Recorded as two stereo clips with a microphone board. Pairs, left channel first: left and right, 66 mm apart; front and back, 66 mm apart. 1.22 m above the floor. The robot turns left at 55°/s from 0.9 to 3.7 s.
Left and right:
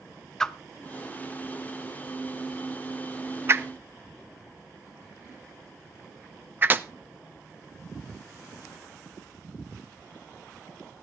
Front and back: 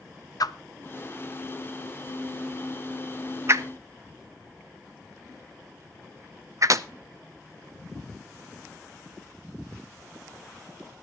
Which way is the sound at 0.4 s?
10° left.